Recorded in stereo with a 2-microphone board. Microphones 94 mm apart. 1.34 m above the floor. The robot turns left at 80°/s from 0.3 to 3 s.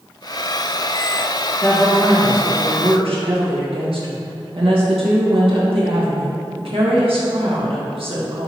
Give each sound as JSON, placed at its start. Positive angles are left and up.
{"t": 1.6, "sound": "a woman speaking", "azimuth_deg": 45, "distance_m": 1.8}